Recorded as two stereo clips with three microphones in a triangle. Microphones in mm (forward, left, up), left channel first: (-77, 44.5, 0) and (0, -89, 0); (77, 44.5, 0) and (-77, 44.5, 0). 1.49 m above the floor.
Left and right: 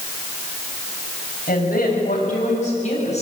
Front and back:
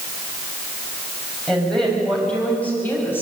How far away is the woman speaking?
About 7.5 m.